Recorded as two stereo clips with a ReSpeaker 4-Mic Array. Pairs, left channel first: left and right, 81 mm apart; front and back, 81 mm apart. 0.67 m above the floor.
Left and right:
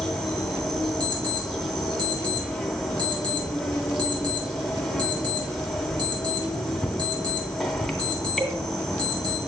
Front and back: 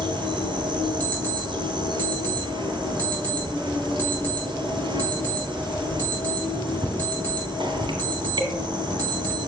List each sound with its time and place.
0.0 s an insect: straight behind, 1.9 m
1.0 s an alarm clock: 65° right, 4 m